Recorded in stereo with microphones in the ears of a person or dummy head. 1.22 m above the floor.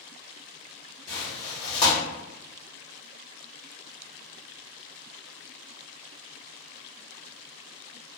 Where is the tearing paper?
25° left (ahead or behind), 1.6 m.